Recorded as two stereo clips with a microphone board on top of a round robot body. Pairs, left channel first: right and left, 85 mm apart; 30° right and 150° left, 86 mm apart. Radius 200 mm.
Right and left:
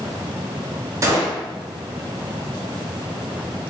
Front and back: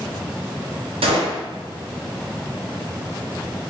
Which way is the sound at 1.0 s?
145° left.